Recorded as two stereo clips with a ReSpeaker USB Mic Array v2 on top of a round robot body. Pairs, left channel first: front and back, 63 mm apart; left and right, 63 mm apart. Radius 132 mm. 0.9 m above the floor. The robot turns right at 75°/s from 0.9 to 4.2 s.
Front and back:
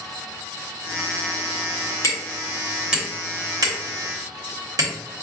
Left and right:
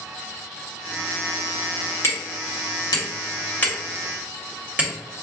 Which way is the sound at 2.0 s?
35° left.